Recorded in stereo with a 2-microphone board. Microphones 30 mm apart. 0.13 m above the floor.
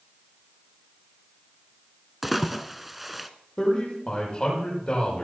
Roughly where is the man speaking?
Left.